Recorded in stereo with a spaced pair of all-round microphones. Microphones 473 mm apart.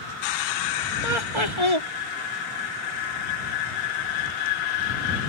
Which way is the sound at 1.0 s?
75° right (ahead or behind).